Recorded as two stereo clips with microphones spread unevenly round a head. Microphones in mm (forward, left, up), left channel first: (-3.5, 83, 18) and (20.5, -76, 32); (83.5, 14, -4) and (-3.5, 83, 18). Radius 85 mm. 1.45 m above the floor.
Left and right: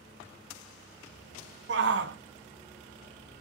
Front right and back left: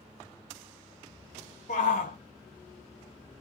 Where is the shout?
85° right, 0.6 m.